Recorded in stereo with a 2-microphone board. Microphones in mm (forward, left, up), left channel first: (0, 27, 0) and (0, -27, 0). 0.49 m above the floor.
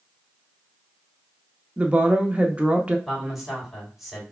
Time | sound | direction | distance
1.8 | a woman speaking | 20° right (ahead or behind) | 0.7 m
3.1 | a man speaking | centre (ahead or behind) | 2.5 m